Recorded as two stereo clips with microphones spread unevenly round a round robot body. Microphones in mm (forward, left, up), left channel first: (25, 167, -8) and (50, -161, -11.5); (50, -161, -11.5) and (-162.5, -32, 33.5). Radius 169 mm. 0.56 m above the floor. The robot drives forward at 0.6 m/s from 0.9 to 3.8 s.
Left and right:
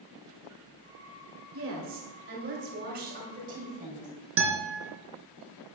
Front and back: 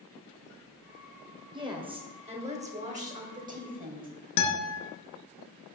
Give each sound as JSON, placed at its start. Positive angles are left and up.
{"t": 1.5, "sound": "a woman speaking", "azimuth_deg": -135, "distance_m": 2.5}
{"t": 4.4, "sound": "a guitar", "azimuth_deg": -35, "distance_m": 2.5}